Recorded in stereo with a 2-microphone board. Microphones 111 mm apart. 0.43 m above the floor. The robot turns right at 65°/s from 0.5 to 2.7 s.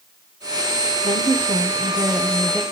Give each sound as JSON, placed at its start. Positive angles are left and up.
{"t": 1.0, "sound": "a woman speaking", "azimuth_deg": -105, "distance_m": 1.1}